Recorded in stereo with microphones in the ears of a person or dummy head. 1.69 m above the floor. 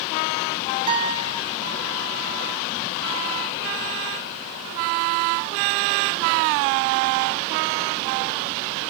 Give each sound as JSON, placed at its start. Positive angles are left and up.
{"t": 0.9, "sound": "a guitar", "side_deg": -30, "distance_m": 0.7}